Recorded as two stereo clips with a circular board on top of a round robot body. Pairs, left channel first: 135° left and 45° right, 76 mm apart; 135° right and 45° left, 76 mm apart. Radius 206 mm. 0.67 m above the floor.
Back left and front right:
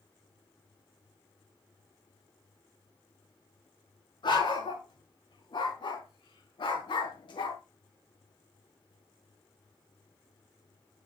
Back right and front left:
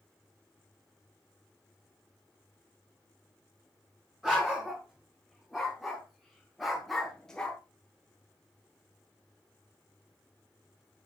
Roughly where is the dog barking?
Behind left.